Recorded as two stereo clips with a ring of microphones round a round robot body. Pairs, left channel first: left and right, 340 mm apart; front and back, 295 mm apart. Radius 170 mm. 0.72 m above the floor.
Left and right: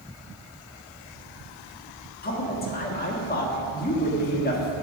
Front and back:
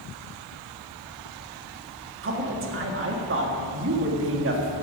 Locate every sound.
2.2 s a man speaking: 145° left, 1.6 m